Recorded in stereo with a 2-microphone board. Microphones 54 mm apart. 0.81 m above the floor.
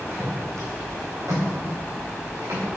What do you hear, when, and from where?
0.1 s footsteps: 55° right (ahead or behind), 3.5 m; by 2.6 s 85° right, 6 m